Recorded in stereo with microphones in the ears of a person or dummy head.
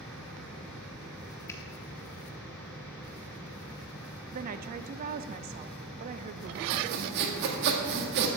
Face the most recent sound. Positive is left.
turn(degrees=-55)  # may be behind; listen again after turning